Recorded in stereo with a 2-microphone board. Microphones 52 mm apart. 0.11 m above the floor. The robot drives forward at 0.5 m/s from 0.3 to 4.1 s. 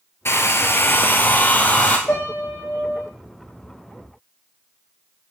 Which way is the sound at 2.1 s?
30° left (ahead or behind).